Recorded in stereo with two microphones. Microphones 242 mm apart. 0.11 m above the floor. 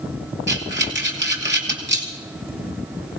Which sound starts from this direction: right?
Breathing, at 0.5 s.